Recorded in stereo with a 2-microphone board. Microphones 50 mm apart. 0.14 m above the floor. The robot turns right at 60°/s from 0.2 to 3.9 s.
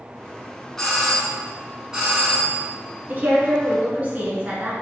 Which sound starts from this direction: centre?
A doorbell, at 0.8 s.